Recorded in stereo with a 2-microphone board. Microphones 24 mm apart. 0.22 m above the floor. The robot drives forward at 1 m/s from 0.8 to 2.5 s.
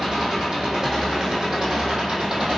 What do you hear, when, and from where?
0.0 s an engine running: 20° right (ahead or behind), 7.5 m; by 2.6 s 25° right (ahead or behind), 6 m